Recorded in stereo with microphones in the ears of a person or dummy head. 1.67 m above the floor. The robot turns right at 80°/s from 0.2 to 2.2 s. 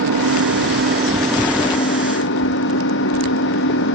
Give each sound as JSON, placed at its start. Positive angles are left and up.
{"t": 0.0, "sound": "an engine running", "azimuth_deg": -100}